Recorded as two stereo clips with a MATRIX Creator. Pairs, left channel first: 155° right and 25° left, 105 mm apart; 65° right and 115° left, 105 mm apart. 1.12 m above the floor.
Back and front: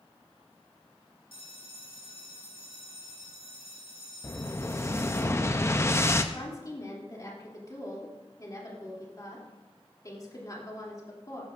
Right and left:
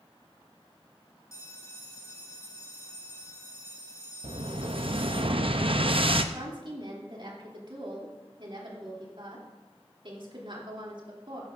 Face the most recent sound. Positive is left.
turn(degrees=145)